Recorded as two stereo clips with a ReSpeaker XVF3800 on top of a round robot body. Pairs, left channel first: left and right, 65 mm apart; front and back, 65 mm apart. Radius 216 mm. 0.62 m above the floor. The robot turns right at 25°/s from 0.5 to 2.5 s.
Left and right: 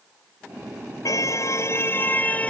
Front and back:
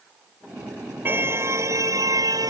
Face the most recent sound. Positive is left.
turn(degrees=160)